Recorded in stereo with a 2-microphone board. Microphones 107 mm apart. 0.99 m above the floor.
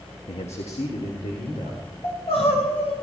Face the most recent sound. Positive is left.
turn(degrees=85)